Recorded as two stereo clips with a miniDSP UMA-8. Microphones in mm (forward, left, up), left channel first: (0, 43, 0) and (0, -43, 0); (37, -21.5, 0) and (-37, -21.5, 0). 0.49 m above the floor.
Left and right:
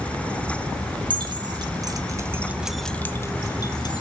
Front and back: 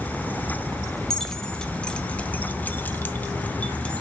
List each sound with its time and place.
1.1 s keys jangling: 80° right, 1.0 m; by 4.0 s 75° left, 0.9 m